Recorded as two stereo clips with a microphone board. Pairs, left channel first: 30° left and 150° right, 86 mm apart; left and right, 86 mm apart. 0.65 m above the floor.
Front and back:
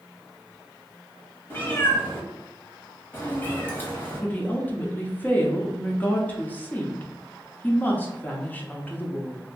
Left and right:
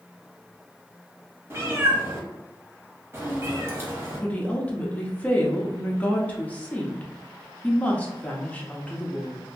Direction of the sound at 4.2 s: 50° left.